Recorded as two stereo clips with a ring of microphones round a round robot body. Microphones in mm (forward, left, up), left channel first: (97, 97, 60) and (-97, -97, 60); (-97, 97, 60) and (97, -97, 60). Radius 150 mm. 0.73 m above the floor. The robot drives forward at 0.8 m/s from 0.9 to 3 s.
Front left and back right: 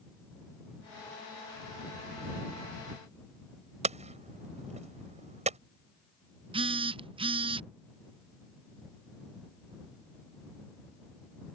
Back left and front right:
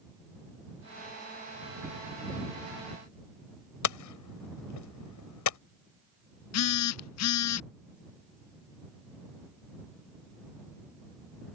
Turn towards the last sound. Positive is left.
turn(degrees=155)